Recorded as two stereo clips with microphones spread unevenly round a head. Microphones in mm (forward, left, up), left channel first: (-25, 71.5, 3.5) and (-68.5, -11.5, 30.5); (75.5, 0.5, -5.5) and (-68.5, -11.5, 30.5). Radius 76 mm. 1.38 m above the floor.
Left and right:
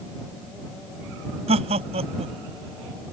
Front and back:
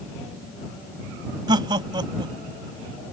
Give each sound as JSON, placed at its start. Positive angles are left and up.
{"t": 1.5, "sound": "laughter", "azimuth_deg": -115}